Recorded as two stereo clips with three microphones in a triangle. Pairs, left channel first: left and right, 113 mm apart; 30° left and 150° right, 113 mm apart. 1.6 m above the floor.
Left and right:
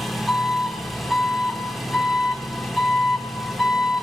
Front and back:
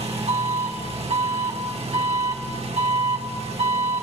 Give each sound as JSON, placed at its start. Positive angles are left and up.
{"t": 0.0, "sound": "an engine running", "azimuth_deg": 180, "distance_m": 1.2}